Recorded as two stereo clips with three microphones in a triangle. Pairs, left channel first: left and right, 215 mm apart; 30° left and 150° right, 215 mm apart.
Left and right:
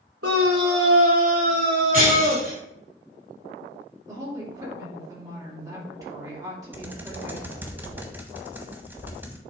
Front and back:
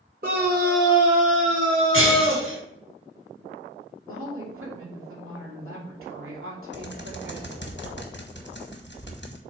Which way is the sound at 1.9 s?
140° right.